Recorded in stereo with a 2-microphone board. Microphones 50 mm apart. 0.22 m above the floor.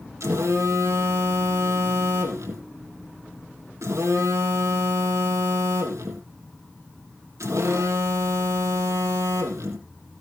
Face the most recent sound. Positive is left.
turn(degrees=-80)